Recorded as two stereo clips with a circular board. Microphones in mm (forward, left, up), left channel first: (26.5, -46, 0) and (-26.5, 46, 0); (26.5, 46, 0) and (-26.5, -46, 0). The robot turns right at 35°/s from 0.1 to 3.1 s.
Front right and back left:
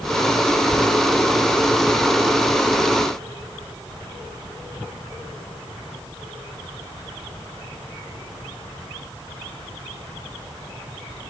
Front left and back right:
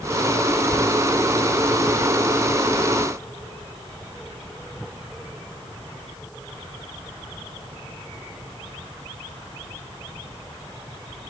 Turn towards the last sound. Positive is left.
No sound to turn to.